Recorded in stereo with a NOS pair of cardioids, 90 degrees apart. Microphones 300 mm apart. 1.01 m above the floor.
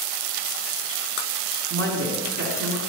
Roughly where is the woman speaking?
Right.